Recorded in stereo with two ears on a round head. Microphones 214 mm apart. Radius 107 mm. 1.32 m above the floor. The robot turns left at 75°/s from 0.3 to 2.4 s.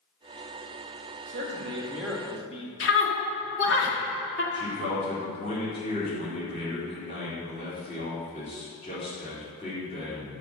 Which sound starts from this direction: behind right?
A man speaking, at 1.3 s.